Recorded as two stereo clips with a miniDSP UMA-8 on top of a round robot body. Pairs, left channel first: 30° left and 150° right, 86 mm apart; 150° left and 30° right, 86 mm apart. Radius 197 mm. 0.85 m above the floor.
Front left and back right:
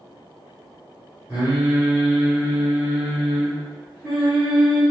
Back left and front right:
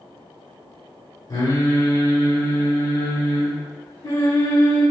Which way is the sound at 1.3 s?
140° left.